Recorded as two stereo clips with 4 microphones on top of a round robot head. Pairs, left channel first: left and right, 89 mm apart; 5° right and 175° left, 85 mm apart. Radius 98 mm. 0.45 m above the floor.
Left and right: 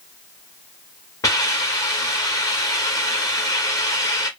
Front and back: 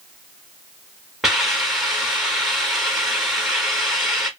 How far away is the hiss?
About 1.4 m.